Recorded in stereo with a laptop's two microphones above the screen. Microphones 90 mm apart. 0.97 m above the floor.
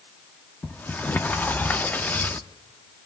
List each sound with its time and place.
0.6 s a sliding door: 20° left (ahead or behind), 0.9 m